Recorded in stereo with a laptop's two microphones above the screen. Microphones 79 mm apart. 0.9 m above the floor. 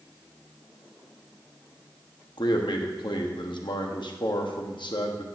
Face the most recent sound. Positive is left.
turn(degrees=80)